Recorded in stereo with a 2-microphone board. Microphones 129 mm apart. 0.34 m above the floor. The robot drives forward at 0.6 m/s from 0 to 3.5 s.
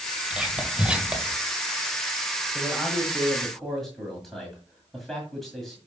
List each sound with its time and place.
0.3 s whispering: 5° right (ahead or behind), 1.8 m; by 1.4 s 10° right (ahead or behind), 1.5 m
2.5 s a man speaking: 5° left (ahead or behind), 1.5 m; by 5.8 s centre (ahead or behind), 2.0 m